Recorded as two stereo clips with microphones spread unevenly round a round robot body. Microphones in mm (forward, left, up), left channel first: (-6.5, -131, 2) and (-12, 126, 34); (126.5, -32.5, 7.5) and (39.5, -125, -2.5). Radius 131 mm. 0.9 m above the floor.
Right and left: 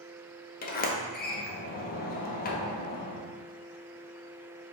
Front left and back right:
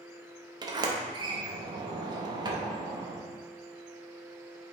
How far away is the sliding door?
About 0.6 m.